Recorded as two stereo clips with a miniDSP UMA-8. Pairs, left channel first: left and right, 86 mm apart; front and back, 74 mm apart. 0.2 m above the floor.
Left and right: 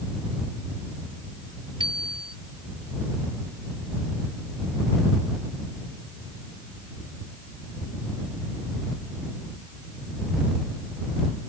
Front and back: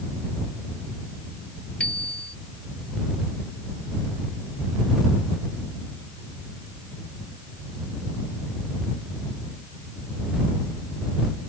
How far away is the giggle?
No giggle in this recording.